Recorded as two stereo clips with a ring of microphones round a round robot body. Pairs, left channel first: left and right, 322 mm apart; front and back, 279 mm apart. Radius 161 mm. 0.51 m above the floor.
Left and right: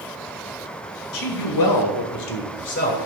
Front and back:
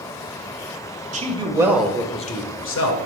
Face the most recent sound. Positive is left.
turn(degrees=25)